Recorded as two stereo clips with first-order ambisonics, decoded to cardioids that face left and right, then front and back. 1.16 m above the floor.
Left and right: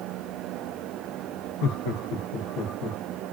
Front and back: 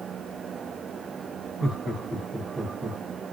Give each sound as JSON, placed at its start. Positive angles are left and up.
{"t": 1.6, "sound": "laughter", "azimuth_deg": 90, "distance_m": 1.8}